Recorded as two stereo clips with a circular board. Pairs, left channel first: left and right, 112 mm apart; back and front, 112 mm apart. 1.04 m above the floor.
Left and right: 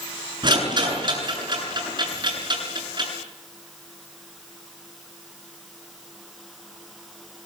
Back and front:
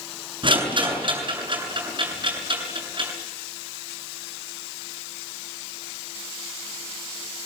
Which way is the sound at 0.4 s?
45° right.